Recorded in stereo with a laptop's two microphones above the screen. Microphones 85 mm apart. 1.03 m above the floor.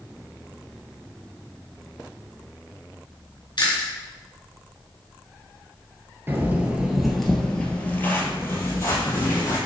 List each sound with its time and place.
3.6 s chewing: 60° left (ahead or behind), 2 m
6.3 s footsteps: 25° right (ahead or behind), 1.1 m; by 9.6 s 40° left (ahead or behind), 2.0 m